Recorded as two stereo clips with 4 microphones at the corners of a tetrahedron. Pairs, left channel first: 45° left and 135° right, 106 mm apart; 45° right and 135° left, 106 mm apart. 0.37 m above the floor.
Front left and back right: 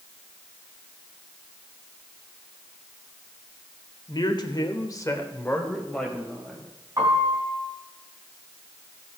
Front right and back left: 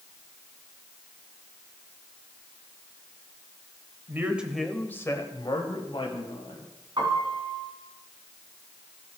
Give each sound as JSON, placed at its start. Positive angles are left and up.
{"t": 4.1, "sound": "a man speaking", "azimuth_deg": 75, "distance_m": 1.1}
{"t": 7.0, "sound": "a piano", "azimuth_deg": 175, "distance_m": 3.0}